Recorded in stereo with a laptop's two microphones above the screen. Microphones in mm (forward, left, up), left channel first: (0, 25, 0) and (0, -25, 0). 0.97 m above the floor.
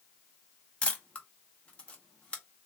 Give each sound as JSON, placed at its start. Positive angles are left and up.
{"t": 0.8, "sound": "a camera shutter", "side_deg": 25, "distance_m": 0.6}